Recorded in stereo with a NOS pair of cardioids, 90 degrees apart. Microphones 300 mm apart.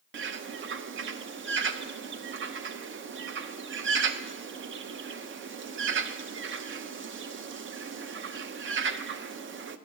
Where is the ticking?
No ticking in this recording.